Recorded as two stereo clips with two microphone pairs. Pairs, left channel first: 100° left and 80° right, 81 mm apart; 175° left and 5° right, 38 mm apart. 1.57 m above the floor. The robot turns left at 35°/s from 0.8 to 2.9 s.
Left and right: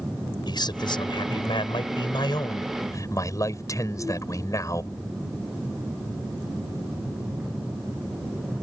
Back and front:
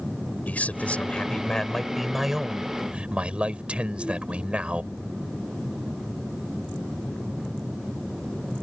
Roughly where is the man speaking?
Behind left.